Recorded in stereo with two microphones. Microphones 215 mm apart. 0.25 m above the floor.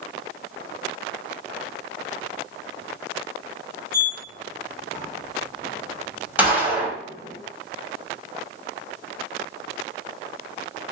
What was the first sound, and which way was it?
A sliding door, 40° left (ahead or behind).